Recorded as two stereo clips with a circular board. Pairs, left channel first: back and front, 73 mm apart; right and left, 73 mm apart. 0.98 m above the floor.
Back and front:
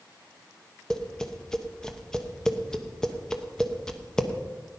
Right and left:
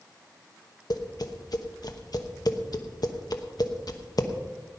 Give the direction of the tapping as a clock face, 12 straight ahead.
3 o'clock.